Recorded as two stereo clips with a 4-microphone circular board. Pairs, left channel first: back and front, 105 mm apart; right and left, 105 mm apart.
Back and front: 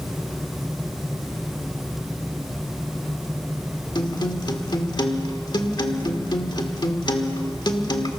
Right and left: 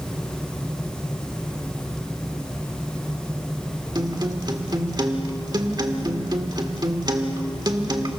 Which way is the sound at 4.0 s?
135° left.